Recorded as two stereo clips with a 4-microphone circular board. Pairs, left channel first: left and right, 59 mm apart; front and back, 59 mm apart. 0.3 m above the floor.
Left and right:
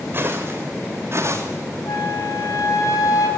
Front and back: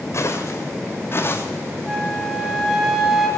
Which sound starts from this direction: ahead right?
Footsteps, at 0.1 s.